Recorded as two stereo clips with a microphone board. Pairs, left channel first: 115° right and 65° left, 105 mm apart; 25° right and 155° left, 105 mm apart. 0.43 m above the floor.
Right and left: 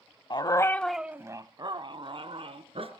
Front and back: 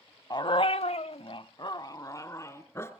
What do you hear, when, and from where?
0.3 s a dog barking: 70° right, 0.7 m; by 2.9 s 45° left, 1.7 m